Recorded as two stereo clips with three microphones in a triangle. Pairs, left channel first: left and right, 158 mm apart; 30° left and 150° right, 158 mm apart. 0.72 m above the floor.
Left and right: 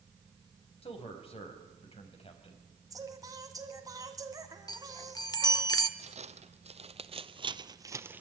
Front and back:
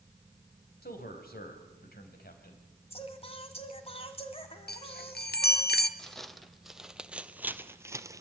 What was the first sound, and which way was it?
A man speaking, 40° left.